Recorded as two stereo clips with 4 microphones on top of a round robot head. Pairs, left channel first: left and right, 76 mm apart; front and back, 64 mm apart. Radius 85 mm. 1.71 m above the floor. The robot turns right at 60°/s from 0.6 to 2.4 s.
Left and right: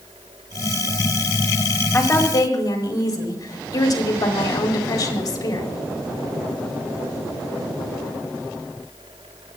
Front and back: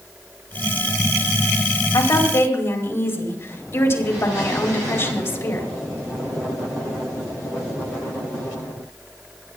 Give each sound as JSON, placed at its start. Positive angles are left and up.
{"t": 1.9, "sound": "a woman speaking", "azimuth_deg": 20, "distance_m": 5.0}